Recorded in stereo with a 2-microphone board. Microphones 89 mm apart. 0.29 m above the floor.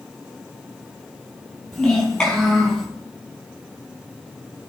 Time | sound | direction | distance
1.7 | a child speaking | 5° left (ahead or behind) | 5.5 m